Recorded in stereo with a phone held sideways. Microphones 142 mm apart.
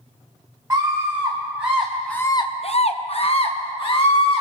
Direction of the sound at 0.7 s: 20° right (ahead or behind).